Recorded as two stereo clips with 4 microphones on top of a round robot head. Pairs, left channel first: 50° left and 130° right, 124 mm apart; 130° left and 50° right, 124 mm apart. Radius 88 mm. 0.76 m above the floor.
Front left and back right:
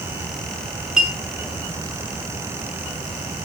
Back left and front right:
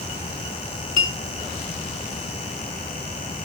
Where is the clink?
145° left, 5 m.